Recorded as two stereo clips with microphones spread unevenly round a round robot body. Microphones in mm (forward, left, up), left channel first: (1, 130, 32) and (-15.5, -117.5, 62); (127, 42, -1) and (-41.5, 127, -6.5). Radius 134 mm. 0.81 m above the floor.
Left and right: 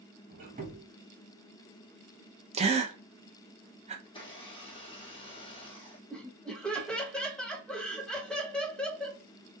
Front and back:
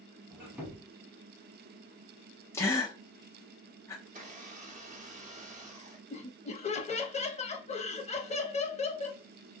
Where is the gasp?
75° right, 0.6 m.